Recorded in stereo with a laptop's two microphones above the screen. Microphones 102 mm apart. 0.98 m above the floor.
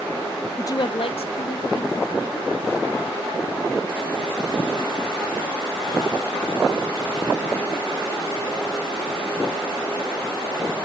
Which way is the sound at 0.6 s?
30° left (ahead or behind).